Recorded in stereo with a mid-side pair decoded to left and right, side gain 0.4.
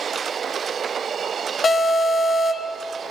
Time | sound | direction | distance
1.6 | an alarm | 45° left | 3 m